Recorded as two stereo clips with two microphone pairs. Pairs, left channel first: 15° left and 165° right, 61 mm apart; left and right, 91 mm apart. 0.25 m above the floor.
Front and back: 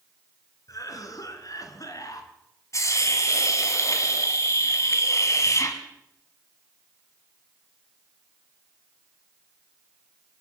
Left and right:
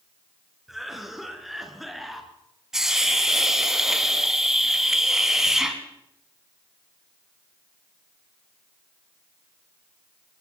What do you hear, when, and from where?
0.7 s a cough: straight ahead, 3 m
2.7 s a hiss: 5° right, 2 m